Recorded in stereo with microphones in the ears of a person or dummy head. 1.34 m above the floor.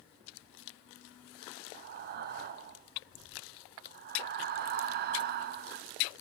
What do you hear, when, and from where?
1.7 s breathing: 45° right (ahead or behind), 0.6 m